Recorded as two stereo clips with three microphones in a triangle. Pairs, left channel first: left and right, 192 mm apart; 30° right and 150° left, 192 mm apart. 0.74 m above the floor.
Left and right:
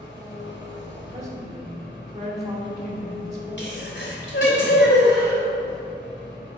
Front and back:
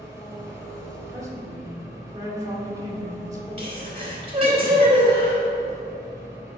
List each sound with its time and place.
0.0 s an engine running: 75° left, 2.5 m
1.1 s a woman speaking: 140° right, 2 m
3.6 s a sneeze: 90° left, 3 m